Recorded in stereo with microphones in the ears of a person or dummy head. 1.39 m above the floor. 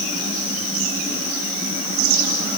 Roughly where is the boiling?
No boiling in this recording.